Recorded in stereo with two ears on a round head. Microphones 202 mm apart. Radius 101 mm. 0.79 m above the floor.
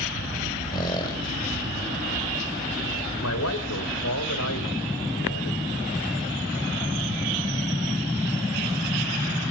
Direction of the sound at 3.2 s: 80° left.